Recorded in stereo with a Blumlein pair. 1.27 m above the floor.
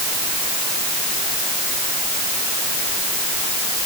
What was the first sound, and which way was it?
Only background noise.